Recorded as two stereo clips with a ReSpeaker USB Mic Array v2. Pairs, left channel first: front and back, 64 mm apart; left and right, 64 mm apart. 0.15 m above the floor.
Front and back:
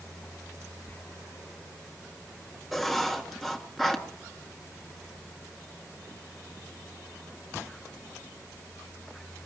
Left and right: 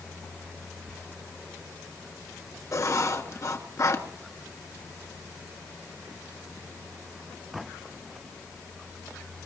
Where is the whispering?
20° right, 1.4 m.